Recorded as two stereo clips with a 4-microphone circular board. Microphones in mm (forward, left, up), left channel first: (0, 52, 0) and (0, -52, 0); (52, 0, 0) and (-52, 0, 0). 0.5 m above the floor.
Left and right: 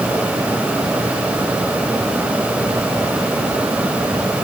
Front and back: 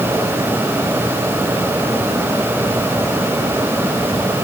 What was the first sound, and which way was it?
Only background noise.